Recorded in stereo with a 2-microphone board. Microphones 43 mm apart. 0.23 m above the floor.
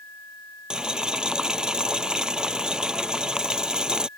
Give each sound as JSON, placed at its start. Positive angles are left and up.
{"t": 0.7, "sound": "boiling", "side_deg": -20}